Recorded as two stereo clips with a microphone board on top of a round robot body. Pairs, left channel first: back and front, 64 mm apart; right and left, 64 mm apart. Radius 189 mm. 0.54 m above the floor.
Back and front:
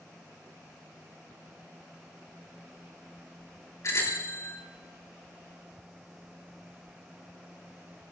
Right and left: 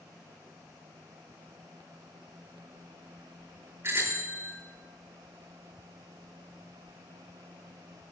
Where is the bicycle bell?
140° left, 7.5 m.